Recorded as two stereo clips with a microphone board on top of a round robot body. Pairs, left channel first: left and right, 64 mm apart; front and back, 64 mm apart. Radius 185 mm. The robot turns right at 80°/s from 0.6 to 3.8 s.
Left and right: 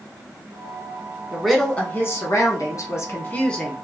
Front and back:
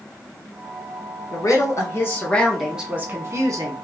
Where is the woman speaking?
10° right, 1.5 m; by 3.7 s 175° right, 1.5 m.